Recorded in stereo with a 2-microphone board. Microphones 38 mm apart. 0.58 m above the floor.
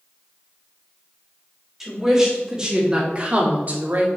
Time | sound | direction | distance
1.8 | a woman speaking | 10° right (ahead or behind) | 2.5 m